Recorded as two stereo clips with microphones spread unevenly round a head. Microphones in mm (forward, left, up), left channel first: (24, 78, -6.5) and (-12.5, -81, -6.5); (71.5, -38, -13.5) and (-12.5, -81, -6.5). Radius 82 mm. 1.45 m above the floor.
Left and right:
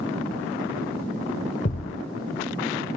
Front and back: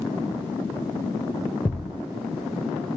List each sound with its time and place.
1.6 s a thud: 115° left